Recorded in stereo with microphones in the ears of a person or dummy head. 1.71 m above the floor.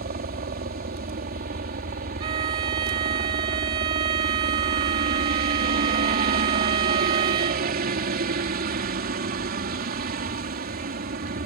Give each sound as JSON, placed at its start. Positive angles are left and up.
{"t": 0.0, "sound": "a helicopter", "side_deg": -50}
{"t": 2.2, "sound": "a violin", "side_deg": -30}